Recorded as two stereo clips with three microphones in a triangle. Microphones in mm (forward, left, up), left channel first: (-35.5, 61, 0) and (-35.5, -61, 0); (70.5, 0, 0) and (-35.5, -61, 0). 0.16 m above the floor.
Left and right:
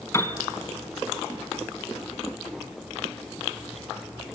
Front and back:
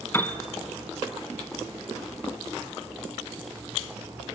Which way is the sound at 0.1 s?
70° left.